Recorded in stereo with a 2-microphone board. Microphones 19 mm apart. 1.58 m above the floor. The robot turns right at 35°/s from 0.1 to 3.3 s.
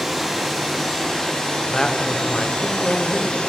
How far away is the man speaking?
About 1.1 m.